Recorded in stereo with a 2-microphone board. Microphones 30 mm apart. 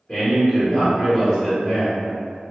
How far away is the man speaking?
About 1.0 m.